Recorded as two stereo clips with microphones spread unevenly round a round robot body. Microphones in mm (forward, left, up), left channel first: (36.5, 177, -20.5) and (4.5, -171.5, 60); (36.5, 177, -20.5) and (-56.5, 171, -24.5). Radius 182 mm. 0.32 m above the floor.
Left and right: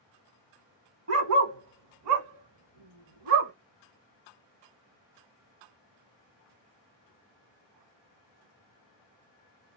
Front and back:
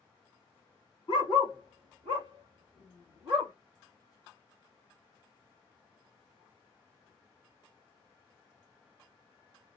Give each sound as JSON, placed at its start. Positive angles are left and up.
{"t": 1.1, "sound": "a dog barking", "azimuth_deg": -40, "distance_m": 1.1}